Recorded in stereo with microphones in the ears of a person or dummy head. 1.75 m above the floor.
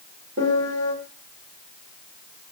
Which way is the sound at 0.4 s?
45° right (ahead or behind).